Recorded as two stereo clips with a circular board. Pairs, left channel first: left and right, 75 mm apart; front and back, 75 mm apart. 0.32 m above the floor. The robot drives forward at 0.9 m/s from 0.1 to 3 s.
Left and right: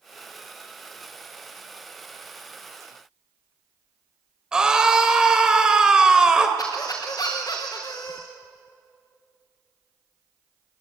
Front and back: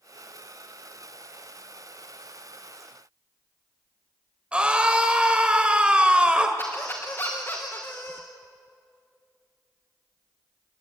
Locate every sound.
4.5 s a scream: 145° right, 1.5 m
6.6 s a squeak: 55° left, 4.5 m